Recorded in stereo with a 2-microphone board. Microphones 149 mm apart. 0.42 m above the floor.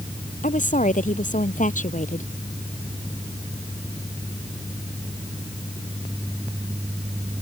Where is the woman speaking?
65° left (ahead or behind).